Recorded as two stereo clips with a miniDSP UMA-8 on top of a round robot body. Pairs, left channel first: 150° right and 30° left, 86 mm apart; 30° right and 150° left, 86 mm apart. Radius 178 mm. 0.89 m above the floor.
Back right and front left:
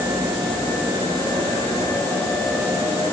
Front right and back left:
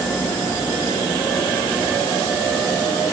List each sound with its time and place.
Only background noise.